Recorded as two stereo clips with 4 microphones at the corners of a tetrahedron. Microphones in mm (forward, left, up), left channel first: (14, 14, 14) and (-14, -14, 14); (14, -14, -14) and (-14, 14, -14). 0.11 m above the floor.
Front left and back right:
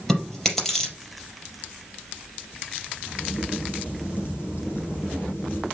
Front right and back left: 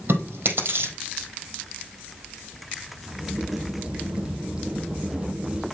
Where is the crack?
70° left, 3 m.